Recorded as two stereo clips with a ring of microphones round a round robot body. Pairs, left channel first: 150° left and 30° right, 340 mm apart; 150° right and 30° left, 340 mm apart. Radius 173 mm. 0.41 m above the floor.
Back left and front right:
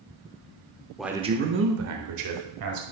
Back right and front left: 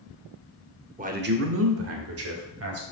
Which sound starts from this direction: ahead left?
A man speaking, at 1.0 s.